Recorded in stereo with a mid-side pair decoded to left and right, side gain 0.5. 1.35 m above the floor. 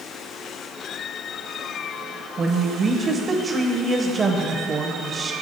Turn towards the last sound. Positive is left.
turn(degrees=-45)